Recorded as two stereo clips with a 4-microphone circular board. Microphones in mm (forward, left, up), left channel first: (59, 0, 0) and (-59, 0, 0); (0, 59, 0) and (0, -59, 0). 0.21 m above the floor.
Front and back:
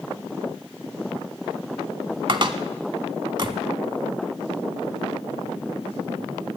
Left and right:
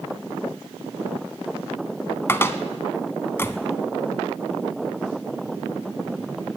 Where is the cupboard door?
150° left, 0.7 m.